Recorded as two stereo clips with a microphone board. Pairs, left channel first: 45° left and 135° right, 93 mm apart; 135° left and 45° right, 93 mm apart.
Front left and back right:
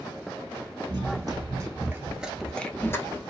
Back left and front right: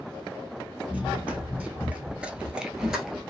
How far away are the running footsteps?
About 0.9 m.